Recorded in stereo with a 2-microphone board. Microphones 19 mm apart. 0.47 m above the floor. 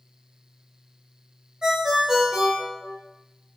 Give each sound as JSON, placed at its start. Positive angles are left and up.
{"t": 1.6, "sound": "a ringtone", "side_deg": -45, "distance_m": 1.0}